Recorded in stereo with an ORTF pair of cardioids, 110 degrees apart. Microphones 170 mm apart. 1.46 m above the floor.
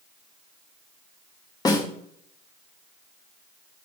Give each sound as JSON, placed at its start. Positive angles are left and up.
{"t": 1.6, "sound": "a snare drum", "azimuth_deg": 25, "distance_m": 2.5}